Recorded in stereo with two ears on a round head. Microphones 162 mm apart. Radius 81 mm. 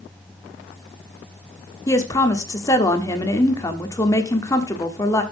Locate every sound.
1.9 s a woman speaking: 20° left (ahead or behind), 1.3 m